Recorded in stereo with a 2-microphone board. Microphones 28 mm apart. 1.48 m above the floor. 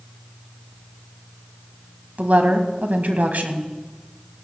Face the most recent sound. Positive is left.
turn(degrees=-80)